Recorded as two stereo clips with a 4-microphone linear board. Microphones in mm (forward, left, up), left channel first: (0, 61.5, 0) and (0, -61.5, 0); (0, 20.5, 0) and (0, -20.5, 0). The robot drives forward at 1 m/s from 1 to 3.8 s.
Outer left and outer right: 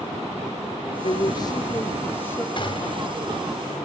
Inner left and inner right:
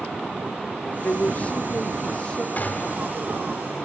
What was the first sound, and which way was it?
A woman speaking, 50° left (ahead or behind).